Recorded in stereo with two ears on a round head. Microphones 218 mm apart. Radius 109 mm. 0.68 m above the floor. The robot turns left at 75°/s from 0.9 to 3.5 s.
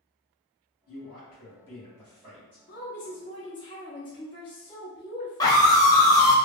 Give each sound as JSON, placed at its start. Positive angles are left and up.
{"t": 0.9, "sound": "a man speaking", "azimuth_deg": 75, "distance_m": 1.7}
{"t": 2.7, "sound": "a woman speaking", "azimuth_deg": 100, "distance_m": 0.7}
{"t": 5.4, "sound": "a scream", "side_deg": 15, "distance_m": 0.7}